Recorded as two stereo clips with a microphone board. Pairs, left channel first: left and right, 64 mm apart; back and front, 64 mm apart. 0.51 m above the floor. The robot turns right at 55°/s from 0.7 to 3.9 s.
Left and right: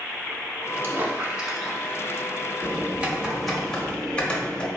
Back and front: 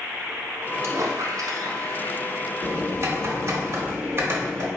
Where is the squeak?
40° right, 1.0 m; by 2.3 s 40° left, 1.0 m.